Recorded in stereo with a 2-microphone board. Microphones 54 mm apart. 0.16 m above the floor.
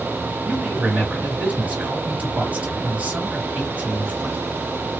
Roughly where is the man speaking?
Right.